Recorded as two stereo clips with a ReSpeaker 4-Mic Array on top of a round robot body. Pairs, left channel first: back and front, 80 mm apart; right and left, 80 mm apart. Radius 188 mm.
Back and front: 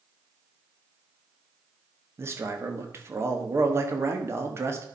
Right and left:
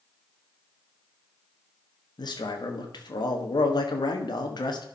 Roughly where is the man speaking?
Ahead right.